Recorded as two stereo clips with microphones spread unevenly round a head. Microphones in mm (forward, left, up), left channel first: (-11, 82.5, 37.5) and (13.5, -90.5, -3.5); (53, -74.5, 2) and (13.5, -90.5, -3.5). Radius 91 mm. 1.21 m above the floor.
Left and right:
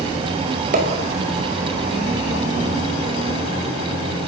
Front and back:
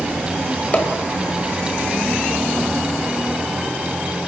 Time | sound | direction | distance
0.7 | a pop | 35° right | 5 m